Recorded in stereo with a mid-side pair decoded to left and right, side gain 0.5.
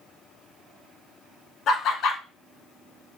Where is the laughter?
65° left, 1.2 m.